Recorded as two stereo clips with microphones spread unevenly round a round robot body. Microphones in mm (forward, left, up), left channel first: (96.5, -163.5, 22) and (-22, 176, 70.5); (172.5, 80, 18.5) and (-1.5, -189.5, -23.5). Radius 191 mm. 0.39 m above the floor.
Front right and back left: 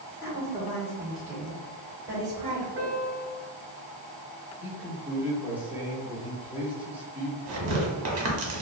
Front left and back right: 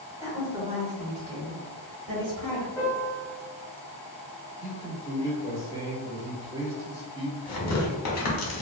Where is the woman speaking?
55° right, 1.2 m; by 2.7 s 170° right, 1.8 m.